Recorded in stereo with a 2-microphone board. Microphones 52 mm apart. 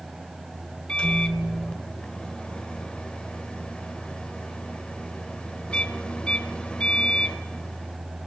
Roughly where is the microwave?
Left.